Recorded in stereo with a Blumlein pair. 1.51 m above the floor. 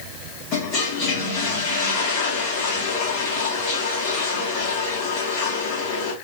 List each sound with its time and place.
0.5 s a toilet flushing: 35° left, 1.6 m